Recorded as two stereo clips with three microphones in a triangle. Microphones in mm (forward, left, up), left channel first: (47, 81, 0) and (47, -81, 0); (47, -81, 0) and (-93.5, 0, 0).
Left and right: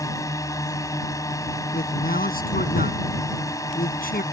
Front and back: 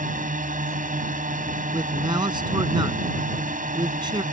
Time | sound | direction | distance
0.0 | a drone | 155° left | ?
1.7 | a man speaking | 90° left | ?